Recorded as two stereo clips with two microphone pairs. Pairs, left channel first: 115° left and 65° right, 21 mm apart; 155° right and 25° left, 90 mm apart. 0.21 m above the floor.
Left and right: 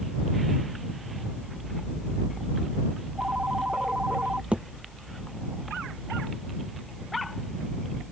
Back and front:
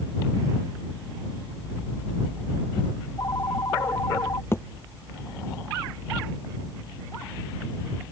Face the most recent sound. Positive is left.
turn(degrees=-95)